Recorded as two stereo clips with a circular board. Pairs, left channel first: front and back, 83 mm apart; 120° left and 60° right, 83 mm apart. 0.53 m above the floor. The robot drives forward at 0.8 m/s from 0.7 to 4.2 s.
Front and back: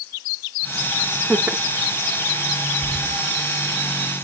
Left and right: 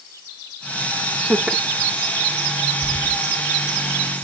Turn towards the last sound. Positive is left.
turn(degrees=140)